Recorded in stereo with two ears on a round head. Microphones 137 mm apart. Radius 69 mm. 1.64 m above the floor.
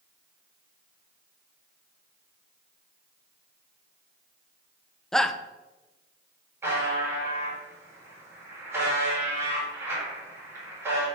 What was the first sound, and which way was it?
A shout, 5° left (ahead or behind).